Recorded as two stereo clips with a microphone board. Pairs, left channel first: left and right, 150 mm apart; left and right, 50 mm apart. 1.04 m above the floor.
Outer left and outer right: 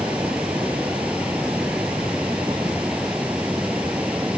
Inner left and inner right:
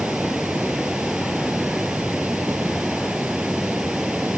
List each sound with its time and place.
0.0 s running water: 10° right (ahead or behind)